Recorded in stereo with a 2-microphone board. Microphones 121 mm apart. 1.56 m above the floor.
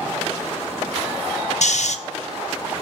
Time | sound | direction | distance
1.6 | snoring | 70° left (ahead or behind) | 1.0 m